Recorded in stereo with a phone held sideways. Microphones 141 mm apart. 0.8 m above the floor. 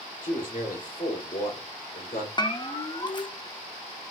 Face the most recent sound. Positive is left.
turn(degrees=35)  # may be behind; listen again after turning